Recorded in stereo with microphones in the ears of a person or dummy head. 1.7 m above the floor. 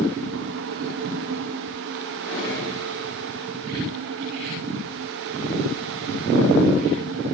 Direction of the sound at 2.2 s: 45° left (ahead or behind).